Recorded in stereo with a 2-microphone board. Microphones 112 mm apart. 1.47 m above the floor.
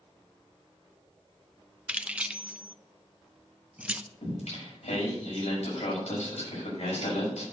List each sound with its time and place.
1.9 s keys jangling: 10° right (ahead or behind), 0.7 m
4.2 s singing: 85° left, 6.5 m